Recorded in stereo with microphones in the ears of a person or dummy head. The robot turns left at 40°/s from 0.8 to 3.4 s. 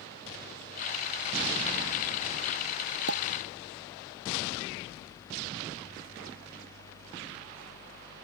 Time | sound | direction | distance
3.1 | a pop | 75° right (ahead or behind) | ?